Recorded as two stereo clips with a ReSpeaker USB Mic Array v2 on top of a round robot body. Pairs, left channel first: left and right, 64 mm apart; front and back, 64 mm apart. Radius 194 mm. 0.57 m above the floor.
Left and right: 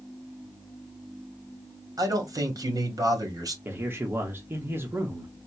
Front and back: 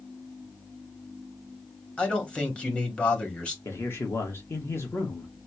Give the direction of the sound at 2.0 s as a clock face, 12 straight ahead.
3 o'clock.